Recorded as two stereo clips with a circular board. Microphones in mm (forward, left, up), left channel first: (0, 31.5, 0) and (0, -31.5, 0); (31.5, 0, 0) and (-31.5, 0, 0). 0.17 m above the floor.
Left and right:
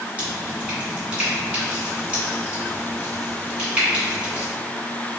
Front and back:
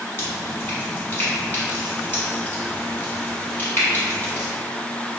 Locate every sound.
0.2 s dripping: 30° right, 1.6 m